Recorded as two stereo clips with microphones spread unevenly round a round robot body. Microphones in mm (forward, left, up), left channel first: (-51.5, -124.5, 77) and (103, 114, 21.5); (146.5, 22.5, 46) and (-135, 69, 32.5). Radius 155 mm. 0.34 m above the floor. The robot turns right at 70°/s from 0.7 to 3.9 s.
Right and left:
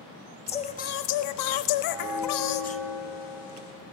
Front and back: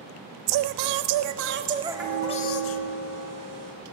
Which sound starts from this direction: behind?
Singing, at 0.5 s.